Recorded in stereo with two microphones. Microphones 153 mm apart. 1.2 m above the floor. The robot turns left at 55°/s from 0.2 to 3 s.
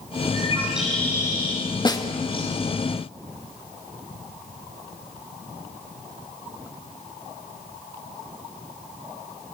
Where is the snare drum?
30° left (ahead or behind), 1.7 m; by 2.0 s 20° left (ahead or behind), 1.7 m.